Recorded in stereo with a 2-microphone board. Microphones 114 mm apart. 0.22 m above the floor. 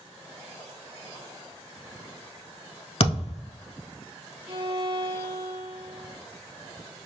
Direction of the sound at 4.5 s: 60° right (ahead or behind).